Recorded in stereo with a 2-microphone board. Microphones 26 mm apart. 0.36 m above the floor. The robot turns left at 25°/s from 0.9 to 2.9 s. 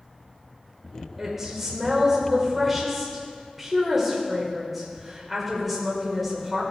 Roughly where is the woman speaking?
Centre.